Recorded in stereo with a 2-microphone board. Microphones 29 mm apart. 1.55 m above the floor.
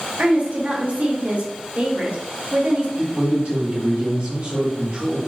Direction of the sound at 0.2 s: 55° right (ahead or behind).